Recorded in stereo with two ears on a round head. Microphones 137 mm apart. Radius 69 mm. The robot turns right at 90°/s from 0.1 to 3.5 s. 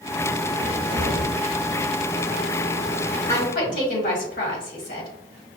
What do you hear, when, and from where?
0.6 s a cupboard door: 170° right, 1.4 m; by 1.3 s 105° right, 1.4 m
3.3 s a woman speaking: 40° left (ahead or behind), 1.7 m; by 5.1 s 60° left (ahead or behind), 1.7 m